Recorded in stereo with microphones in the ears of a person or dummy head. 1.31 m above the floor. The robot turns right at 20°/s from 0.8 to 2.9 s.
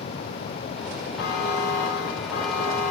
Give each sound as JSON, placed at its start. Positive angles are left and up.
{"t": 1.2, "sound": "a buzzer", "azimuth_deg": 70, "distance_m": 1.9}